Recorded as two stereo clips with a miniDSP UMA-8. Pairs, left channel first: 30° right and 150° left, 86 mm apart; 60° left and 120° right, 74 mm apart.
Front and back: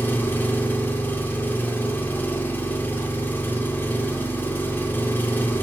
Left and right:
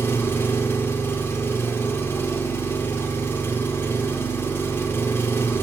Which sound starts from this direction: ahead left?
An engine running, at 0.0 s.